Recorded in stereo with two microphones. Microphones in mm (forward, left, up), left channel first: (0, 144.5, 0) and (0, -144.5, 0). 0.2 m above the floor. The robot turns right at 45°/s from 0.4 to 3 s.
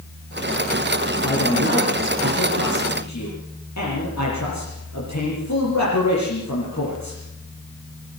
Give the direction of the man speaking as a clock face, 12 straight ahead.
11 o'clock.